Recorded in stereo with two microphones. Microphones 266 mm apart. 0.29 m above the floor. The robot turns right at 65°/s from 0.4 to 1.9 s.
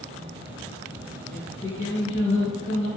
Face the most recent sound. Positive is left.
turn(degrees=95)